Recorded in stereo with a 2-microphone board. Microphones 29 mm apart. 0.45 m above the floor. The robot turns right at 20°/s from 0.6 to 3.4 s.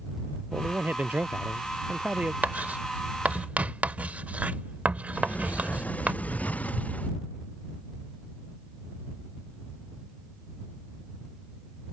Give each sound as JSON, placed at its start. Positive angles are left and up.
{"t": 0.5, "sound": "a man speaking", "azimuth_deg": -80}
{"t": 2.4, "sound": "writing", "side_deg": -70}
{"t": 5.1, "sound": "a sliding door", "side_deg": 60}